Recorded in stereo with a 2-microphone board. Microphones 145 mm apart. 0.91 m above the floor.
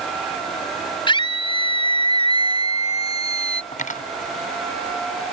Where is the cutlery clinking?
65° left (ahead or behind).